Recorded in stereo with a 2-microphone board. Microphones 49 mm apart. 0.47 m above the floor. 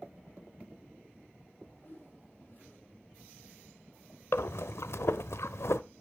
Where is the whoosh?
50° left (ahead or behind), 6 m.